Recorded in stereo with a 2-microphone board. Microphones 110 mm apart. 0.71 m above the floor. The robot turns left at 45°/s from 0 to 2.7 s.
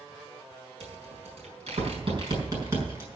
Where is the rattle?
70° right (ahead or behind), 5 m; by 3.1 s 25° right (ahead or behind), 5 m.